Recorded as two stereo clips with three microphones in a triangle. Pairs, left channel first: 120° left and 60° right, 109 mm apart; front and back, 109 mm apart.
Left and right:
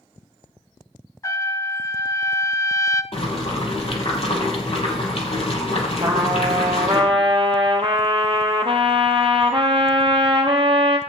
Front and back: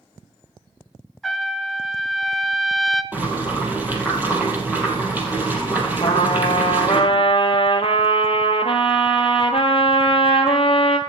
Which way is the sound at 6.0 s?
25° right.